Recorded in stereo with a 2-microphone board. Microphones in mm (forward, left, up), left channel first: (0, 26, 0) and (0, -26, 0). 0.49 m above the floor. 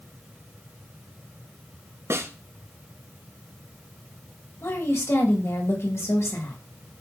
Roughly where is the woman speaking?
Left.